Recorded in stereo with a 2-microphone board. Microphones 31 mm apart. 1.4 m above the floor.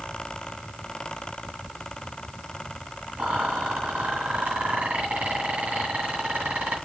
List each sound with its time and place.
3.2 s a rattle: 65° right (ahead or behind), 2.5 m